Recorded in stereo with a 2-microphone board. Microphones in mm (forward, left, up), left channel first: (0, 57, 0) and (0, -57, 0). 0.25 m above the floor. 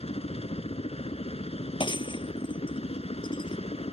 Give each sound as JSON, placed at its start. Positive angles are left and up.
{"t": 0.0, "sound": "a helicopter", "side_deg": 60}
{"t": 1.8, "sound": "breaking glass", "side_deg": 45}